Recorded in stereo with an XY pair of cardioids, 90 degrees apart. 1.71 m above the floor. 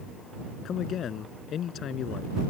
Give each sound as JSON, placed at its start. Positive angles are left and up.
{"t": 0.7, "sound": "a man speaking", "azimuth_deg": 70}